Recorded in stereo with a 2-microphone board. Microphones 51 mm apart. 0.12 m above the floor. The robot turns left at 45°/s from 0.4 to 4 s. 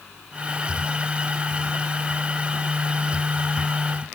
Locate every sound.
Only background noise.